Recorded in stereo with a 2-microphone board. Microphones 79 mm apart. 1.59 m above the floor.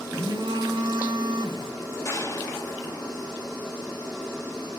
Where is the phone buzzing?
85° right, 3 m.